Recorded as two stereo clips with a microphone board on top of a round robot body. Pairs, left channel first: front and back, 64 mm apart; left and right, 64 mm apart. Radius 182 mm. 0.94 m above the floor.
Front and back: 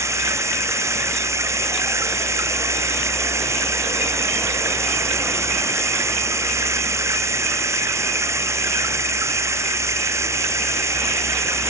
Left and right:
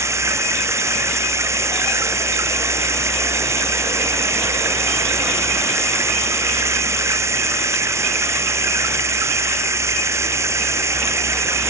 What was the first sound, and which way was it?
Running water, 135° right.